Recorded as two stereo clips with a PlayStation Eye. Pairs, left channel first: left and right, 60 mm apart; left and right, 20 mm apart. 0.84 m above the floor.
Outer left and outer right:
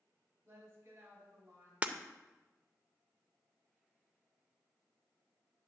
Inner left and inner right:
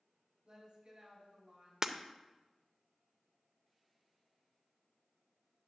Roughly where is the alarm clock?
No alarm clock in this recording.